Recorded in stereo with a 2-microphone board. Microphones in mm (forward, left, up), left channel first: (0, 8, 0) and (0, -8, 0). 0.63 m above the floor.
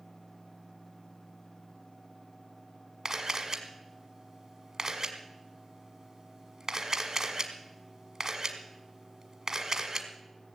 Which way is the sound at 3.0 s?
40° right (ahead or behind).